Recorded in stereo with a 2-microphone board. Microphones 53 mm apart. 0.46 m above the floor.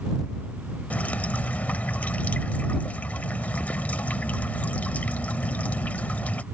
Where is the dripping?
35° left (ahead or behind).